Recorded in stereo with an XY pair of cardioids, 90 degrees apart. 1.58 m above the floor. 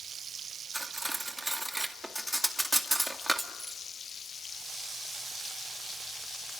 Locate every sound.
0.7 s cutlery clinking: 5° right, 2 m